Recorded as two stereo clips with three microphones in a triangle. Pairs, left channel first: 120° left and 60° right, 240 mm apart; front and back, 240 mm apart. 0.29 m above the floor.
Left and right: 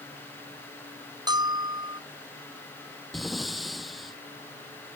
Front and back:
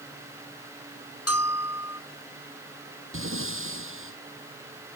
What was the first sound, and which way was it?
A bell, 15° left.